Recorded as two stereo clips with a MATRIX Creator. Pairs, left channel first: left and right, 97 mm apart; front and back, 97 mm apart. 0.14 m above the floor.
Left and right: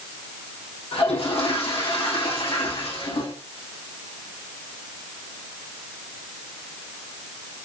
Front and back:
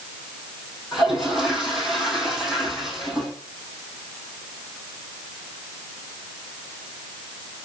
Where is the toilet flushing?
90° left, 2.5 m.